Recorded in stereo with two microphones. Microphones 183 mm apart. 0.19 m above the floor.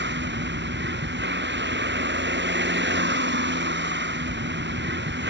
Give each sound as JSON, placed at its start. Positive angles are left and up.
{"t": 0.0, "sound": "a vehicle", "side_deg": -75}